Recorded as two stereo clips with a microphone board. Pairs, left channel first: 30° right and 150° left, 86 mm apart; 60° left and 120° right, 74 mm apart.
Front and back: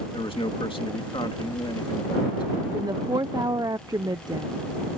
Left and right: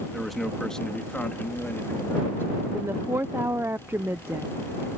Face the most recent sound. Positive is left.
turn(degrees=-175)